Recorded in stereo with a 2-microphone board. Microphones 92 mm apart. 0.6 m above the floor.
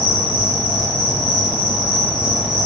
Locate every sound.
0.0 s an insect: 55° right (ahead or behind), 1.9 m